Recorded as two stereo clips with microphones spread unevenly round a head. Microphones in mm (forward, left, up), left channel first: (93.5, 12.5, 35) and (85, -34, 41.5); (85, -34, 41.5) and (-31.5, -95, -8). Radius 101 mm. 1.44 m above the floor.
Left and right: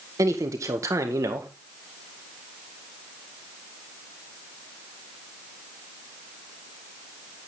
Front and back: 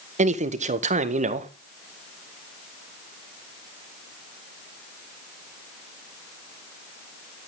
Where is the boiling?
No boiling in this recording.